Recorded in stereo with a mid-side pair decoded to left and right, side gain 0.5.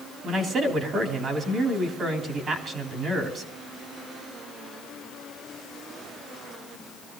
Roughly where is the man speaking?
Ahead right.